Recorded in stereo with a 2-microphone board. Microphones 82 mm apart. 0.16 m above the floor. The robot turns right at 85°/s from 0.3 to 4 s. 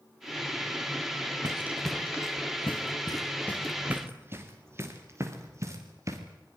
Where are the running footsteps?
40° right (ahead or behind), 2.5 m.